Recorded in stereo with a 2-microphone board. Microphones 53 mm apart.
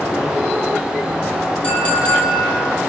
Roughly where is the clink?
Left.